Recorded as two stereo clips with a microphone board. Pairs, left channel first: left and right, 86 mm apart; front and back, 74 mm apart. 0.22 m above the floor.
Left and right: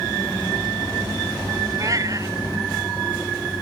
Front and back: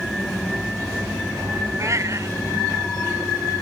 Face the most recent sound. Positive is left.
turn(degrees=-135)